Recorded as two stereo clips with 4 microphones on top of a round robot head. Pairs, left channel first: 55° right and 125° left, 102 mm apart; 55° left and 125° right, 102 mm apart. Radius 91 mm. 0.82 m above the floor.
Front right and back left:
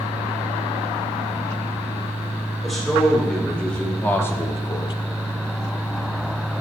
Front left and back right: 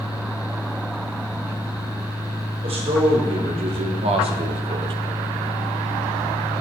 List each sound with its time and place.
2.6 s a man speaking: 145° right, 2.5 m; by 4.9 s 90° right, 0.8 m